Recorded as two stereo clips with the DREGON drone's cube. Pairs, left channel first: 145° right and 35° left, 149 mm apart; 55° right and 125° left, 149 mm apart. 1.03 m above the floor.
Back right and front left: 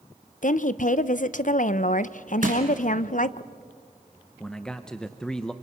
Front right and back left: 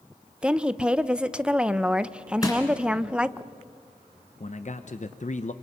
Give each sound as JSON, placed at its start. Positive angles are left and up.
{"t": 0.4, "sound": "a woman speaking", "azimuth_deg": -155, "distance_m": 0.7}
{"t": 2.4, "sound": "crushing", "azimuth_deg": 10, "distance_m": 3.5}
{"t": 4.4, "sound": "a man speaking", "azimuth_deg": -60, "distance_m": 0.8}